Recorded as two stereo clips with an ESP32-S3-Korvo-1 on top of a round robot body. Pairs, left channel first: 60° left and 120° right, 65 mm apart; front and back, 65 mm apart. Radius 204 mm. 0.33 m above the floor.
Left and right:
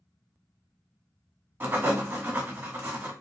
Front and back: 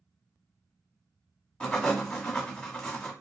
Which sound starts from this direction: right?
Writing, at 1.6 s.